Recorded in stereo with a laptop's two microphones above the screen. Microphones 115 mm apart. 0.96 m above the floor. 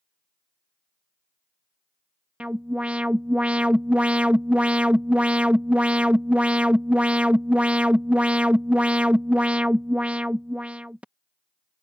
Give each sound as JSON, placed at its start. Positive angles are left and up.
{"t": 2.4, "sound": "an alarm", "side_deg": -10}